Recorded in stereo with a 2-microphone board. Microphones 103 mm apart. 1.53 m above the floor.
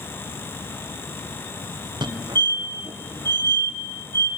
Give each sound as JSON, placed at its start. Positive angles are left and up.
{"t": 2.0, "sound": "a fire alarm", "side_deg": -40, "distance_m": 2.5}